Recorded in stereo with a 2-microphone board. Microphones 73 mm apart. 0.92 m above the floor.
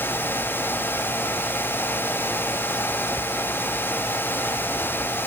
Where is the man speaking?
No man speaking in this recording.